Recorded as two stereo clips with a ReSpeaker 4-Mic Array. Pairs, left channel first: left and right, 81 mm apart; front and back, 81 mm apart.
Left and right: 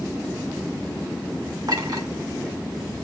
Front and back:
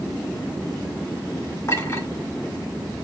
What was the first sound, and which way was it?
A clink, 55° right.